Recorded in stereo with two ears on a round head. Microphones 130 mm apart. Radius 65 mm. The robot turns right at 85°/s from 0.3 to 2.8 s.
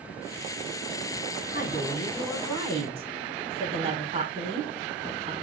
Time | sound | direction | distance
1.5 | a woman speaking | 115° left | 4.5 m